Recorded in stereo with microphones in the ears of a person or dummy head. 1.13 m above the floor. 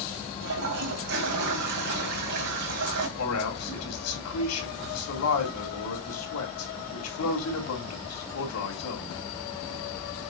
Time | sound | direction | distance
0.4 | a toilet flushing | 55° right (ahead or behind) | 1.9 m
3.2 | a man speaking | 85° left | 3 m